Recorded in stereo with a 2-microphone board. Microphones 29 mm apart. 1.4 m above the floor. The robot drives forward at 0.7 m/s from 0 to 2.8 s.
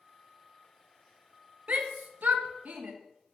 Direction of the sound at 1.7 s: 55° right (ahead or behind).